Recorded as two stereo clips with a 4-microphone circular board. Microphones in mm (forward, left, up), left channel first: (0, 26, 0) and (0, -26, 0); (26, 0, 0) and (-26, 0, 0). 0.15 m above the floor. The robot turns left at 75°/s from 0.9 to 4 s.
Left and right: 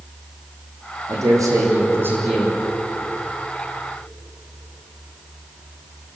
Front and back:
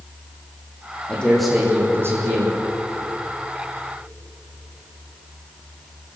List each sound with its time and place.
1.1 s a man speaking: 65° right, 8 m; by 2.5 s 175° right, 8 m